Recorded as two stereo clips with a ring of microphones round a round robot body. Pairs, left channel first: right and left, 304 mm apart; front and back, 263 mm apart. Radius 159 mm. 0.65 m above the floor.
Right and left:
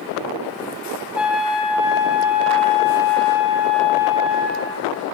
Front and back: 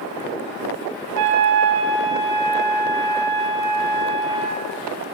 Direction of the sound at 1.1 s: 175° left.